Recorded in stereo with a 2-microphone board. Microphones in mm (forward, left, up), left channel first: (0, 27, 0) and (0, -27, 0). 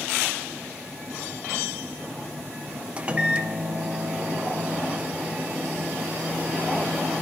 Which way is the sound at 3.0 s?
20° right (ahead or behind).